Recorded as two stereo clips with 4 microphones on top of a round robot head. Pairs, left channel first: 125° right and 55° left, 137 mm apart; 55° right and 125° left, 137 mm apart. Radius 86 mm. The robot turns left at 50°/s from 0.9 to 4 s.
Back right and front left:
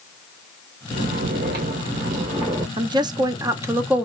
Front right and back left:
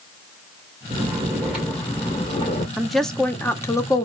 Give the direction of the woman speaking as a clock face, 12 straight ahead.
11 o'clock.